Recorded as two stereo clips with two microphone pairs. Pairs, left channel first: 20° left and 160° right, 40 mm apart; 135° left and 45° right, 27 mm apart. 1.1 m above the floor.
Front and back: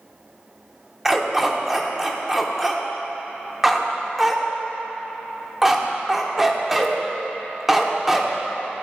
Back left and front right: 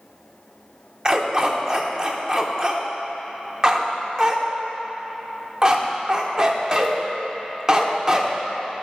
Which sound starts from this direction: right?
A dog barking, at 1.1 s.